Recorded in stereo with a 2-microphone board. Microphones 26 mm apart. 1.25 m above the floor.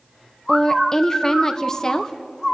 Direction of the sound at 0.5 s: 25° left (ahead or behind).